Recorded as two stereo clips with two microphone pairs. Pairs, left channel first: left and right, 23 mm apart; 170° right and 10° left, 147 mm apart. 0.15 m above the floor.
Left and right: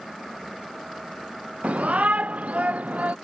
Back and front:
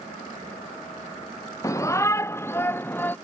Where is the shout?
100° right; by 3.2 s 95° right.